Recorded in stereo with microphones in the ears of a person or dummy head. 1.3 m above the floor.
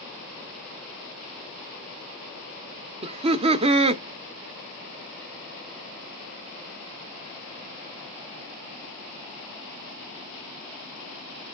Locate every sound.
3.0 s laughter: 35° right (ahead or behind), 0.6 m